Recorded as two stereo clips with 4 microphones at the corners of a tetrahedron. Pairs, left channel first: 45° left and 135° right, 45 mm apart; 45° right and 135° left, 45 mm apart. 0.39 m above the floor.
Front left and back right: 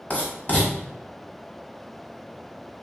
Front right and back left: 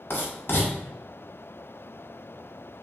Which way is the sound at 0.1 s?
10° right.